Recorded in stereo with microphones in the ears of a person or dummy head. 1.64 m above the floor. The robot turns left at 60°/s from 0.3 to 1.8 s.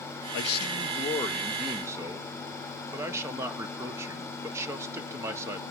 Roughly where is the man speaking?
Left.